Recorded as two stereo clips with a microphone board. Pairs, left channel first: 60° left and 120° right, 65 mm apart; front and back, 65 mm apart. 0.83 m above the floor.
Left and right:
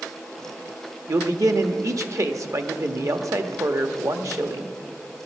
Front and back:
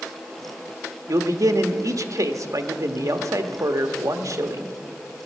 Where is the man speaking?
150° right, 1.0 m.